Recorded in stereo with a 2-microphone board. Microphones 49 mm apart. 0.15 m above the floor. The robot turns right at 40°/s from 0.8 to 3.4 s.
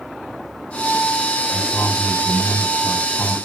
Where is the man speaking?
100° left, 7.5 m; by 3.3 s 175° left, 7.5 m.